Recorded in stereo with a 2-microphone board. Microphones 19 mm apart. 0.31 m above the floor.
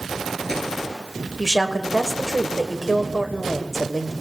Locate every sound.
1.4 s a woman speaking: 10° left (ahead or behind), 1.2 m